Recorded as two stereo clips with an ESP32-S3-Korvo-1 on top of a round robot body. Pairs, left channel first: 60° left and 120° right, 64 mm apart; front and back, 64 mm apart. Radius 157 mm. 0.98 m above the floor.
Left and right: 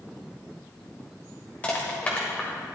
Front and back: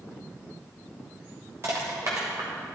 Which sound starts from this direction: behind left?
Crushing, at 1.6 s.